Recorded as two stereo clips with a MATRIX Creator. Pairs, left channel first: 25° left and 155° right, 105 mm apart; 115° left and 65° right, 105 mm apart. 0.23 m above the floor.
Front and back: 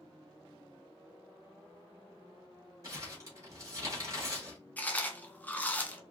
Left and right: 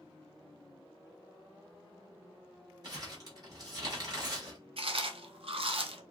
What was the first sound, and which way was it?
Crumpling, 110° right.